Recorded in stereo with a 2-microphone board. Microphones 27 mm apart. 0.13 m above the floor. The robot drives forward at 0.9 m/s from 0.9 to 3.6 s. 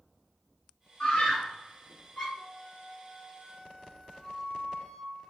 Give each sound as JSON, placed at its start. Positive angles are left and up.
{"t": 1.0, "sound": "a scream", "side_deg": 35, "distance_m": 1.6}
{"t": 2.3, "sound": "a flute", "side_deg": 35, "distance_m": 1.3}